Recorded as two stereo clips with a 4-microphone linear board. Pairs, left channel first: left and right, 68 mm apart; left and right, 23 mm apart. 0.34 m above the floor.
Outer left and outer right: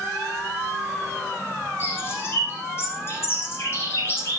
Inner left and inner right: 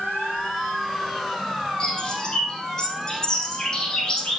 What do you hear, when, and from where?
1.8 s a bird: 35° left (ahead or behind), 9.5 m